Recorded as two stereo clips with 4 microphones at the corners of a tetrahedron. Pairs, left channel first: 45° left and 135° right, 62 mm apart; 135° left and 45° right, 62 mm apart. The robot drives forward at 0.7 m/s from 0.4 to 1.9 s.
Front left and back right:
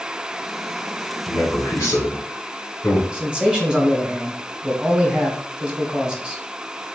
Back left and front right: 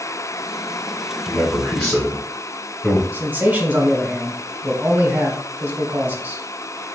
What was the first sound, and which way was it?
A man speaking, 55° left.